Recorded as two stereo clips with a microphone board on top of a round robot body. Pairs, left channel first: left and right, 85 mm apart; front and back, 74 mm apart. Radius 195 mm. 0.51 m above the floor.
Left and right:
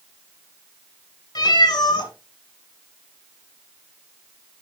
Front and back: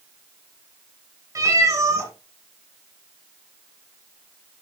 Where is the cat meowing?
130° left, 1.8 m.